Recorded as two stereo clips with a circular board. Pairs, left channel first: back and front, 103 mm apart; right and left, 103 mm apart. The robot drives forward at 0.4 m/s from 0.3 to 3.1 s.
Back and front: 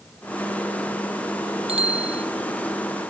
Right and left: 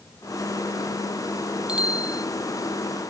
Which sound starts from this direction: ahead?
A bicycle bell, at 1.7 s.